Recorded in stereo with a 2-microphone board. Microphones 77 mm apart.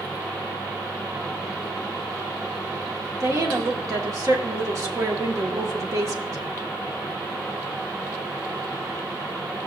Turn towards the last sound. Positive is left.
turn(degrees=-45)  # may be behind; listen again after turning